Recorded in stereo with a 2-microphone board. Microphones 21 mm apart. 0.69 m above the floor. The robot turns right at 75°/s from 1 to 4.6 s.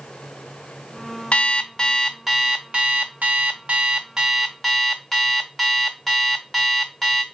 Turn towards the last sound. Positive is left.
turn(degrees=10)